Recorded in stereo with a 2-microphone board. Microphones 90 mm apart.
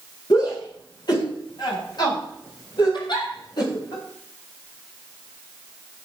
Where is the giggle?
55° left (ahead or behind), 4 m.